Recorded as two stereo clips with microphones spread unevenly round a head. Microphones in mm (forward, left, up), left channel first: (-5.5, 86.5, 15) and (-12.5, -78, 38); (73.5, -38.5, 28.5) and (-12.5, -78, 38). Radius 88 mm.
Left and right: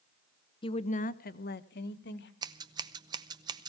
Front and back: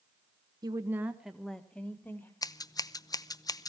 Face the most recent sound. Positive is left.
turn(degrees=-25)